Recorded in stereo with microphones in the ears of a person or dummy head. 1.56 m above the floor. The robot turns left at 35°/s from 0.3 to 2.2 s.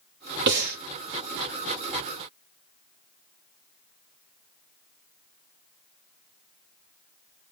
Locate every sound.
0.5 s breathing: 60° right (ahead or behind), 0.9 m; by 0.8 s 45° right (ahead or behind), 0.9 m